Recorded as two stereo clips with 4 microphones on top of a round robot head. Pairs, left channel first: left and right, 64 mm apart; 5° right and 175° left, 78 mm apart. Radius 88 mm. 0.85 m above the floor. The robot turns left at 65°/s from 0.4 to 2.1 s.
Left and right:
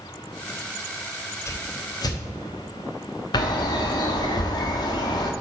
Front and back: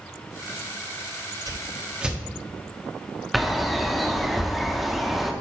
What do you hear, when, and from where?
1.5 s a whoosh: 135° left, 0.9 m; by 2.2 s 95° left, 0.9 m
3.3 s a bird: 85° left, 0.7 m